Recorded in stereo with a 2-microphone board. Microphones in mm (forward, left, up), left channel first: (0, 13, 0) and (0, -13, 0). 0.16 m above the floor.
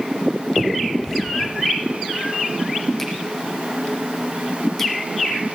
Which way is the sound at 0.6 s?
5° left (ahead or behind).